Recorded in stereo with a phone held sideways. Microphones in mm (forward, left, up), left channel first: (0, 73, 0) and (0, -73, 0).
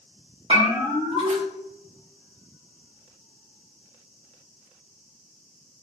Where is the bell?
40° right (ahead or behind), 1.9 m.